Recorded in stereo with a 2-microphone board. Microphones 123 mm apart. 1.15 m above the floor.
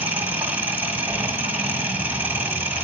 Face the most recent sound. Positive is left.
turn(degrees=-15)  # may be behind; listen again after turning